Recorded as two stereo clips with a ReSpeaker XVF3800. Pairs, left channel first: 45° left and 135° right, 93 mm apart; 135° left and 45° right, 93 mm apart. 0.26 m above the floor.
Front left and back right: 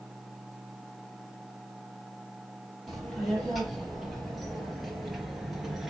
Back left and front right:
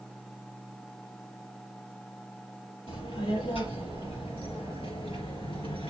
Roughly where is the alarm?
I don't hear an alarm.